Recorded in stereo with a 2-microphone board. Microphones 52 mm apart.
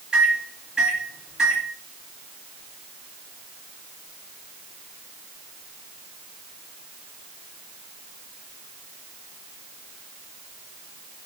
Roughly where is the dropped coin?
I don't hear a dropped coin.